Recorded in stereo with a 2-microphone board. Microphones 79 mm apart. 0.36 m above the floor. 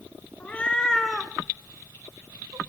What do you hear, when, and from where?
0.4 s a cat meowing: 20° left (ahead or behind), 1.1 m; by 2.6 s 60° right (ahead or behind), 0.8 m